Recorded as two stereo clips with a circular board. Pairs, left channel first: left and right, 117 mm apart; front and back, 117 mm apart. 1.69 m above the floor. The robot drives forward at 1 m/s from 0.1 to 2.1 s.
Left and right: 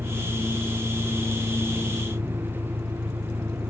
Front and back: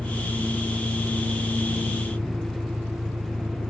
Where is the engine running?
120° right; by 3.7 s 125° right.